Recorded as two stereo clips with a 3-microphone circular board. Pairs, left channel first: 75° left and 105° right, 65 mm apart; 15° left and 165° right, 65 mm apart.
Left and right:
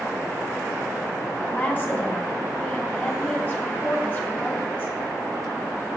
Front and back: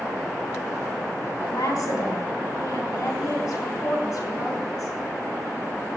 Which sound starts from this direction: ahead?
A woman speaking, at 1.4 s.